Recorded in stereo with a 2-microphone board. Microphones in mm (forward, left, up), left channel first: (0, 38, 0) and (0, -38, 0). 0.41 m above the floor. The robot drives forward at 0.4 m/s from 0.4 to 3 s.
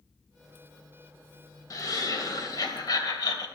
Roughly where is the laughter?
Left.